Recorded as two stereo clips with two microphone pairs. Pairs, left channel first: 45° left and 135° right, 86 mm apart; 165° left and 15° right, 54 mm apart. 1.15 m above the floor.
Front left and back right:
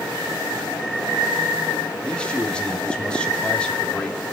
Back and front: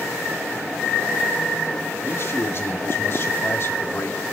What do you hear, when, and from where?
2.0 s a man speaking: 120° left, 2 m